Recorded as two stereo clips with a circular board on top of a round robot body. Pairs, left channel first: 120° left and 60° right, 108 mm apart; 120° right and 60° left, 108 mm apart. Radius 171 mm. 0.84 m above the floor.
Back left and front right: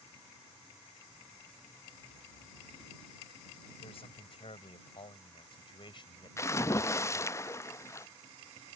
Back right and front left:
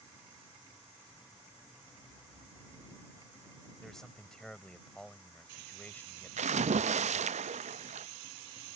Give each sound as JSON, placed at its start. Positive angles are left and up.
{"t": 3.8, "sound": "a man speaking", "azimuth_deg": 155}
{"t": 6.4, "sound": "a splash", "azimuth_deg": 55}